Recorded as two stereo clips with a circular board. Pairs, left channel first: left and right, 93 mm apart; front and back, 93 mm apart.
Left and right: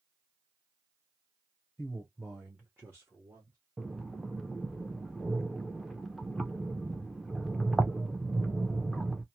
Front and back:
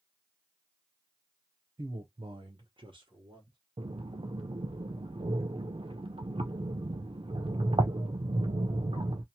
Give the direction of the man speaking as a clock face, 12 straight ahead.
7 o'clock.